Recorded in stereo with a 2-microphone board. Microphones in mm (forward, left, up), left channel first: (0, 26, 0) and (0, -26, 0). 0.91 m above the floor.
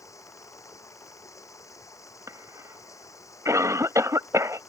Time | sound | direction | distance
0.0 | running water | 85° left | ?
2.3 | a cough | 75° right (ahead or behind) | ?